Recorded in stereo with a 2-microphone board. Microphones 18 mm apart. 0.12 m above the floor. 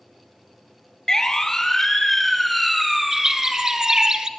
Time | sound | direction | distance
1.1 | a siren | 30° left (ahead or behind) | 2.5 m
3.1 | a bird | 35° right (ahead or behind) | 1.5 m